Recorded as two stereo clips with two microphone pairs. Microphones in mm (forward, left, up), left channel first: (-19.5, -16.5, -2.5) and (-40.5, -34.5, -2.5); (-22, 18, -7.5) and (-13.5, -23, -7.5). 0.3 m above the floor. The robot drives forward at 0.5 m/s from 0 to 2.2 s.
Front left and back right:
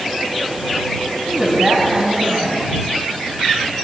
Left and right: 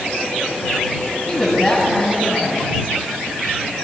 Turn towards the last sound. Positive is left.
turn(degrees=170)